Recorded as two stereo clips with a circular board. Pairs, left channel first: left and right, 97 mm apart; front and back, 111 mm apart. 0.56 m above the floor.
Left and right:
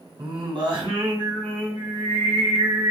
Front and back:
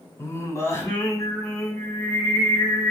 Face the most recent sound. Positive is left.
turn(degrees=-65)